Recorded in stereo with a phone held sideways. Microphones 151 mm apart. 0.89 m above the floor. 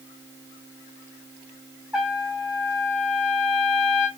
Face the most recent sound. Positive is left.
turn(degrees=-10)  # may be behind; listen again after turning